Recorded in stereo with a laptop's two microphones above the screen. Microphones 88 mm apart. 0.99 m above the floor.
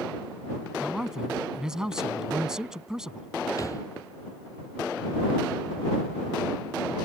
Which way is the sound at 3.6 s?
40° left (ahead or behind).